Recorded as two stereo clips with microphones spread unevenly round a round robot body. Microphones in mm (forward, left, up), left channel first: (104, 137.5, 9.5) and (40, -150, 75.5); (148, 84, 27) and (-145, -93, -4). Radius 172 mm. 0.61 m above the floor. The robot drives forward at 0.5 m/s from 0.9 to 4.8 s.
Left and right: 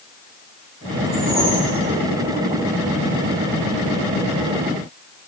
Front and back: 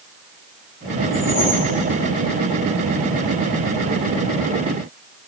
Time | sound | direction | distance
1.1 | a whoosh | 25° right | 7 m